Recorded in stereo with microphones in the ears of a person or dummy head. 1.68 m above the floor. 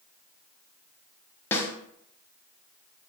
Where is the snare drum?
5° left (ahead or behind), 0.9 m.